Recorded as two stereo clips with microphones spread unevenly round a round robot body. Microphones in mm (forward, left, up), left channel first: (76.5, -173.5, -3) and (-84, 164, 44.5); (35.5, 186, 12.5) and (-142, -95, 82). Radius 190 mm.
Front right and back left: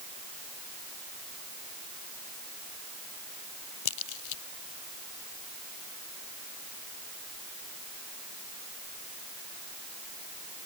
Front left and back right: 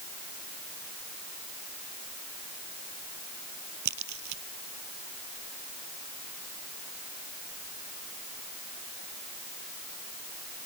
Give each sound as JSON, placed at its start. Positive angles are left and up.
{"t": 3.9, "sound": "a crack", "azimuth_deg": -75}